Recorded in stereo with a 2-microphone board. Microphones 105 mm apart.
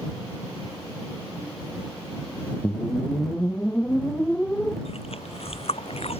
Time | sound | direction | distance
2.6 | a whoosh | 10° left (ahead or behind) | ?
4.8 | chewing | 70° left (ahead or behind) | ?